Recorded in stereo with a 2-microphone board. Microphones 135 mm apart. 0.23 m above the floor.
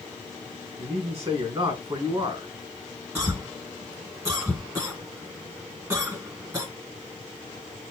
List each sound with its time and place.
0.8 s a man speaking: 40° right (ahead or behind), 3 m
3.1 s a cough: 25° right (ahead or behind), 1.6 m